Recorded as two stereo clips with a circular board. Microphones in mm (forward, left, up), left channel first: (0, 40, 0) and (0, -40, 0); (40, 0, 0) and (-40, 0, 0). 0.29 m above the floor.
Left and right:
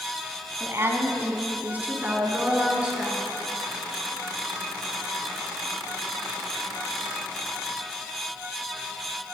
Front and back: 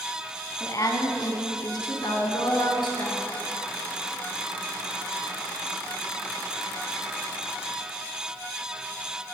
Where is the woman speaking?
40° right, 2.5 m; by 3.3 s 10° right, 4 m.